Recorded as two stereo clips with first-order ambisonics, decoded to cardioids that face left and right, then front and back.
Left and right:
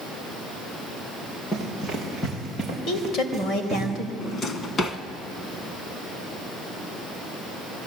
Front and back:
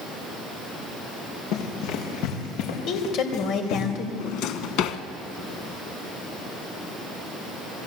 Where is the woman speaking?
40° left, 3 m.